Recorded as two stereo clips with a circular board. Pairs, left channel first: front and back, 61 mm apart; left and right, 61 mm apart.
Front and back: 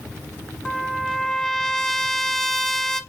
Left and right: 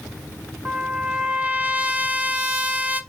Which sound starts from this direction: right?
A trumpet, at 0.7 s.